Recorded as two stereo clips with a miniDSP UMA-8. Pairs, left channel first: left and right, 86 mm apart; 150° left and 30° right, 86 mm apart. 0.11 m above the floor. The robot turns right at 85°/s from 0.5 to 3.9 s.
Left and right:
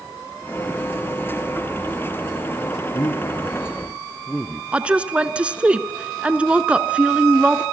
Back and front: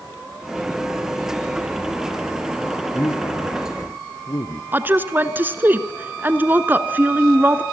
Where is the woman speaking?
40° right, 1.1 m.